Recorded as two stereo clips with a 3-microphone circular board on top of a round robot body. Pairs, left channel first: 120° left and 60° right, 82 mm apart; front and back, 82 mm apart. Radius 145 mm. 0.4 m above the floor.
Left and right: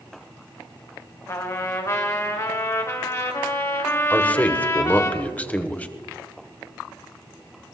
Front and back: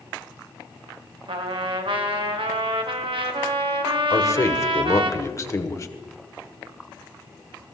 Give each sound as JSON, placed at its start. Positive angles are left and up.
{"t": 1.3, "sound": "a trumpet", "azimuth_deg": 175, "distance_m": 1.8}
{"t": 4.1, "sound": "a man speaking", "azimuth_deg": 50, "distance_m": 1.6}